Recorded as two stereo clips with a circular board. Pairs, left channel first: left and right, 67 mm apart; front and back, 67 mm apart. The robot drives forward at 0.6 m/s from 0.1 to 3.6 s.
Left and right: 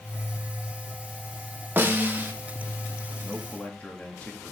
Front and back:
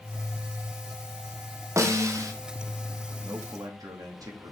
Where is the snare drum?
145° right, 1.6 m; by 2.3 s 155° right, 1.8 m.